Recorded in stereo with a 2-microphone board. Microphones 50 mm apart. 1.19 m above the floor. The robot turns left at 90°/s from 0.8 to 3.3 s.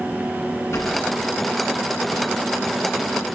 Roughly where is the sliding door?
Left.